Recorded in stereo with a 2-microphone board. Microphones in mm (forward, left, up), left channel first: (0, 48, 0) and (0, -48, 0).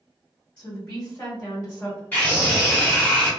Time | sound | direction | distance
0.6 | a woman speaking | 20° left (ahead or behind) | 1.3 m
2.1 | a scream | 20° left (ahead or behind) | 1.2 m